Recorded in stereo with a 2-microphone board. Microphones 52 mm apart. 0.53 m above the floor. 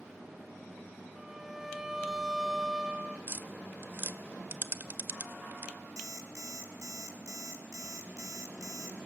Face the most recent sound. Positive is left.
turn(degrees=-75)  # may be behind; listen again after turning